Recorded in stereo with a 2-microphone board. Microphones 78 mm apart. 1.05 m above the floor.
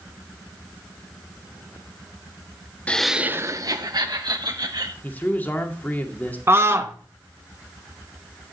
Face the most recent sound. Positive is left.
turn(degrees=-35)  # may be behind; listen again after turning